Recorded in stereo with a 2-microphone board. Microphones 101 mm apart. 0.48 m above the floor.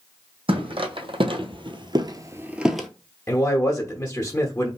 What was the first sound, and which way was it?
Footsteps, 65° right (ahead or behind).